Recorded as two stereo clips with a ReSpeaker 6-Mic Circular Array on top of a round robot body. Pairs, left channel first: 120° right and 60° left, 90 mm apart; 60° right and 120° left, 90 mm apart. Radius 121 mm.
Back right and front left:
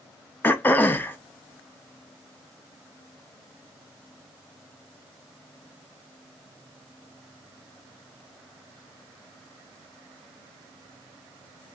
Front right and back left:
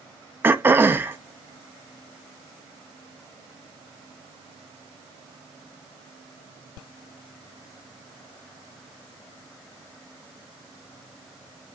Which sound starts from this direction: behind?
Throat clearing, at 0.4 s.